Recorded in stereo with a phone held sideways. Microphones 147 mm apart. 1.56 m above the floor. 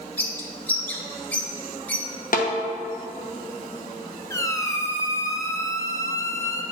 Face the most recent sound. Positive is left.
turn(degrees=20)  # may be behind; listen again after turning